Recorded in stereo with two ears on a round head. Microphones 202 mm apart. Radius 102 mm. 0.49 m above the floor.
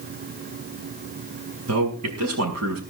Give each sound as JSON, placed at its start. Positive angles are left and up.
{"t": 1.7, "sound": "a man speaking", "side_deg": -75, "distance_m": 5.0}